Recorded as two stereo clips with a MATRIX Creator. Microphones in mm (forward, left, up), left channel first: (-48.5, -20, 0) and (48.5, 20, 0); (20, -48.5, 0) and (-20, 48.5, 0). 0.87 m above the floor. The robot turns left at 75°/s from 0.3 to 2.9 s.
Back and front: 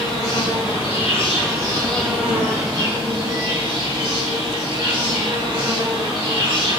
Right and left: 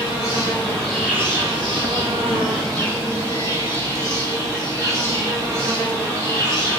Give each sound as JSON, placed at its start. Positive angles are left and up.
{"t": 0.0, "sound": "an insect", "azimuth_deg": -110, "distance_m": 3.5}